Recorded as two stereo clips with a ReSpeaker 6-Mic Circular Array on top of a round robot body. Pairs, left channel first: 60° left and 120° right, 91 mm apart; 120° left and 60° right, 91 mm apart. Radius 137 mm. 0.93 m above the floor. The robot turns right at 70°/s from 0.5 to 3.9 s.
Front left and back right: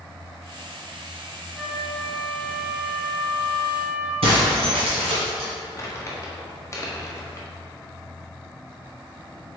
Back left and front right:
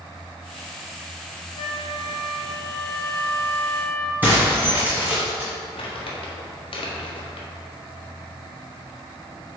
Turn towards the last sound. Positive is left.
turn(degrees=120)